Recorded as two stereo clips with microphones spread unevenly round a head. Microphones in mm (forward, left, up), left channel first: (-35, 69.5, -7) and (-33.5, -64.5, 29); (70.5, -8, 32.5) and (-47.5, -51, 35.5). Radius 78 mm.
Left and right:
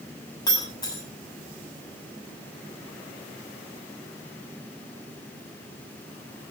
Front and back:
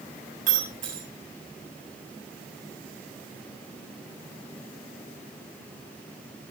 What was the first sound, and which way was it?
Breaking glass, 155° left.